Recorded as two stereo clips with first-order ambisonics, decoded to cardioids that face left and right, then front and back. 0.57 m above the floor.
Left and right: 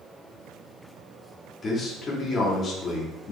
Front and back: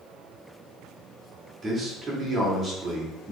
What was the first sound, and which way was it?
A man speaking, 130° left.